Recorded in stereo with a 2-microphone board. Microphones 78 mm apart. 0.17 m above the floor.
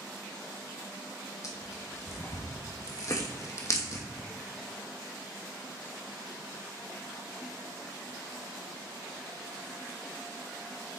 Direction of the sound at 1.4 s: 40° left (ahead or behind).